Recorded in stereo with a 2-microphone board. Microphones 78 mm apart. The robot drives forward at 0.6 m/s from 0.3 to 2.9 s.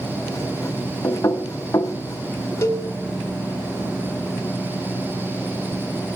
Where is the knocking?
40° left (ahead or behind), 1.0 m.